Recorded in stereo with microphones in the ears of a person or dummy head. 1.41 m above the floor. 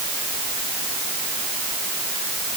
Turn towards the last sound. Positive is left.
No sound to turn to.